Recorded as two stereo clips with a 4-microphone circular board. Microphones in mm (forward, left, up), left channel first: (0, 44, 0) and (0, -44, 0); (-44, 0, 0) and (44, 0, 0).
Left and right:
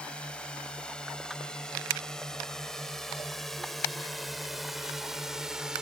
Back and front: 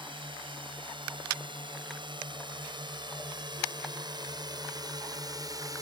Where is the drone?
10° left; by 5.8 s 10° right.